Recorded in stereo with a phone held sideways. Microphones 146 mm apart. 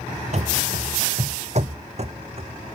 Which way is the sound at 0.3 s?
50° right (ahead or behind).